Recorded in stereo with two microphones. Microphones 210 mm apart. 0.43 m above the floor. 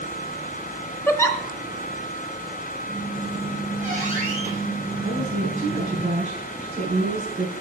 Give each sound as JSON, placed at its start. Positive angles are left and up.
{"t": 1.1, "sound": "a giggle", "side_deg": 10, "distance_m": 1.0}
{"t": 2.9, "sound": "a squeak", "side_deg": -35, "distance_m": 3.0}
{"t": 5.0, "sound": "a woman speaking", "side_deg": -35, "distance_m": 5.5}